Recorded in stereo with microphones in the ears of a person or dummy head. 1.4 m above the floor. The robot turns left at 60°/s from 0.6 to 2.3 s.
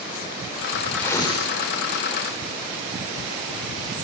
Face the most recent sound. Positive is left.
turn(degrees=95)